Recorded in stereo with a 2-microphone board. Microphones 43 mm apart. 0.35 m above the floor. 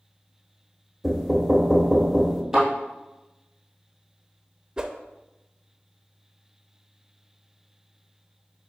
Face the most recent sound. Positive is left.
turn(degrees=-15)  # may be behind; listen again after turning